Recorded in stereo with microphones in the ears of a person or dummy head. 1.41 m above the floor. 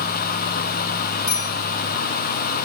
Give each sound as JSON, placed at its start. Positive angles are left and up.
{"t": 1.3, "sound": "a bicycle bell", "side_deg": 15, "distance_m": 5.0}